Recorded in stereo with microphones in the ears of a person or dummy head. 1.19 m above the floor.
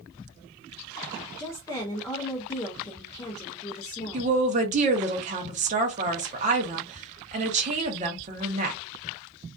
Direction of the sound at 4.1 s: 35° right (ahead or behind).